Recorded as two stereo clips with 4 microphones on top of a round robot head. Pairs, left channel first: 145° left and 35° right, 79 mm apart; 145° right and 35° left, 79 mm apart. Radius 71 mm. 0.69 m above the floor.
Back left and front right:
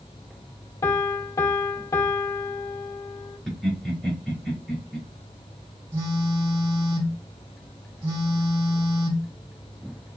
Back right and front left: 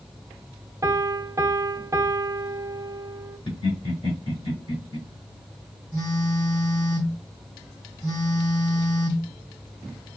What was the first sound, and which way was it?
A piano, 90° left.